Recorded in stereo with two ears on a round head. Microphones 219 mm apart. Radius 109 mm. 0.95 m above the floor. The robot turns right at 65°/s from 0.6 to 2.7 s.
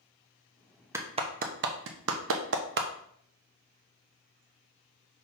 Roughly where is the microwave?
I don't hear a microwave.